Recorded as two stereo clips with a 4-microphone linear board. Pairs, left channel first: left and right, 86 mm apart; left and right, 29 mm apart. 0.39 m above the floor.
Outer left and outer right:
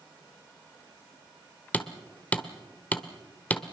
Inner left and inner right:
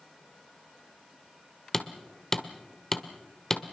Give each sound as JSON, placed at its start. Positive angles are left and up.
{"t": 1.7, "sound": "hammering", "side_deg": 15, "distance_m": 1.1}